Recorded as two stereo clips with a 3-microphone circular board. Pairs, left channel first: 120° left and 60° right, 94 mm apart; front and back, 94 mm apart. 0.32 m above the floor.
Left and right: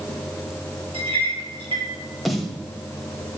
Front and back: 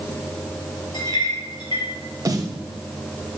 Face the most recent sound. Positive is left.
turn(degrees=-150)